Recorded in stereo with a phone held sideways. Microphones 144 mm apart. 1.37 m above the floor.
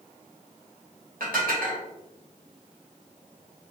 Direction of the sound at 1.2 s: 80° right.